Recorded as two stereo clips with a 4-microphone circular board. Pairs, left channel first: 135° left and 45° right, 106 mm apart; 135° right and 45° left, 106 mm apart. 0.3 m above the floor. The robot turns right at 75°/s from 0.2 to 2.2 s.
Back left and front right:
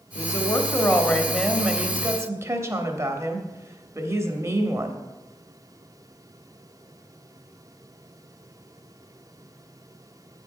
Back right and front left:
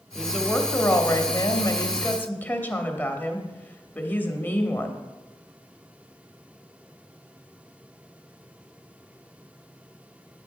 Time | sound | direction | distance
0.1 | a woman speaking | 130° left | 1.0 m